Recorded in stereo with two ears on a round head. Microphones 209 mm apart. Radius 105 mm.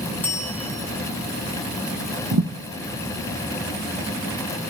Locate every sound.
0.2 s a bell: 10° left (ahead or behind), 3 m
2.3 s a thud: 65° right (ahead or behind), 2 m